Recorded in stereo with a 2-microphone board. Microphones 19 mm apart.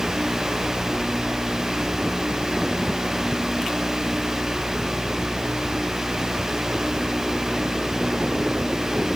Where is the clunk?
No clunk in this recording.